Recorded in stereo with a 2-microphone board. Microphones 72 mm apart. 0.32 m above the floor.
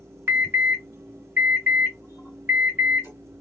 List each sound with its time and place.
0.3 s an alarm: 30° right (ahead or behind), 2.5 m